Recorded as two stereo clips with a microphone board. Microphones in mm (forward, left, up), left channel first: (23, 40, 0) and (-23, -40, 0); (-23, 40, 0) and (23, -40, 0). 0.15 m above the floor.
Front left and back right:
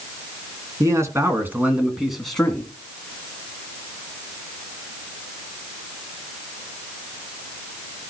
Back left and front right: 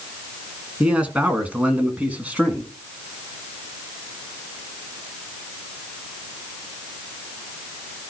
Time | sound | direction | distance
0.8 | a man speaking | 130° right | 2 m